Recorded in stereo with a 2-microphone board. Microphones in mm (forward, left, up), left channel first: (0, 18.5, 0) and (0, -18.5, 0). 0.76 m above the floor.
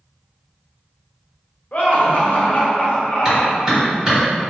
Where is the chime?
No chime in this recording.